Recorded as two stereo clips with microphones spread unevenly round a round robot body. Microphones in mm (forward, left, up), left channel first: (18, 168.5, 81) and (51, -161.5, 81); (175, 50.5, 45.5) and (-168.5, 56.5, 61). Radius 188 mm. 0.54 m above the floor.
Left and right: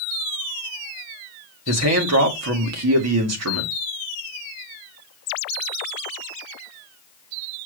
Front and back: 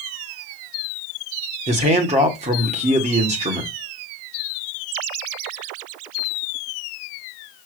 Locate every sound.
1.7 s a man speaking: 110° right, 1.8 m